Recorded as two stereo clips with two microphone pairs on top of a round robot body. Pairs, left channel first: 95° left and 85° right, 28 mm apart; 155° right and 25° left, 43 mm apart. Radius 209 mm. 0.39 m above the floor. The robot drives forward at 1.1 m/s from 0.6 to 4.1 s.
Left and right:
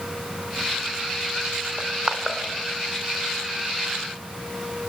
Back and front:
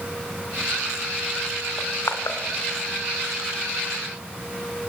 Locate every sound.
1.8 s crushing: 145° right, 1.4 m; by 2.4 s 155° right, 1.9 m